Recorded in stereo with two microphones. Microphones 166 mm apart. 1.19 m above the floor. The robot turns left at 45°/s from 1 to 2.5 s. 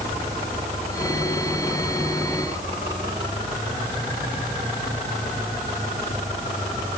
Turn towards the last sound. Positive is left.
No sound to turn to.